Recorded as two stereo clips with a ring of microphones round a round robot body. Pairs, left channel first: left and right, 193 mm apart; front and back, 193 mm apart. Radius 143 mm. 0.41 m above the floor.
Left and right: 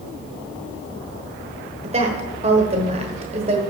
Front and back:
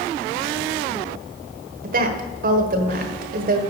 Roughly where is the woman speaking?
Behind right.